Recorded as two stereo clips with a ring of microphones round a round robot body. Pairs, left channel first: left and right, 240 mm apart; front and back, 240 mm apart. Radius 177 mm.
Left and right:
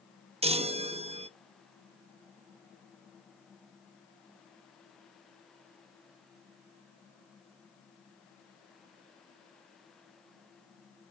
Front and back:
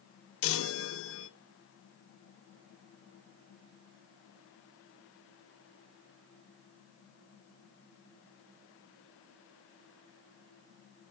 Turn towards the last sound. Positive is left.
turn(degrees=-25)